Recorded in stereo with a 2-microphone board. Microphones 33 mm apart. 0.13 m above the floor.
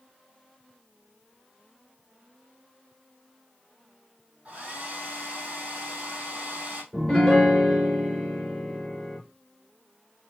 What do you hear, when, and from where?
4.5 s a hair dryer: 45° right (ahead or behind), 2.5 m
6.9 s a piano: centre (ahead or behind), 2 m